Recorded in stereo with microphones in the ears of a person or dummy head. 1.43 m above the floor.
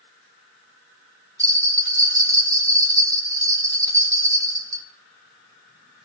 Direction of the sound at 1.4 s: 20° right (ahead or behind).